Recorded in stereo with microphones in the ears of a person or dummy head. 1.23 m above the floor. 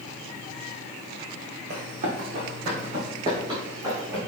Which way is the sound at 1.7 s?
50° right (ahead or behind).